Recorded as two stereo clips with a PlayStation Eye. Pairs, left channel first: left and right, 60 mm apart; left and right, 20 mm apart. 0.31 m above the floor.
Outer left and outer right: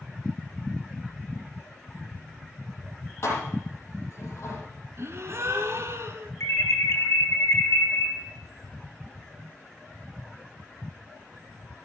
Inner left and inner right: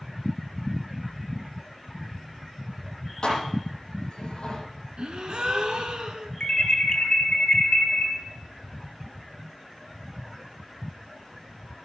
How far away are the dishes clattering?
About 7 m.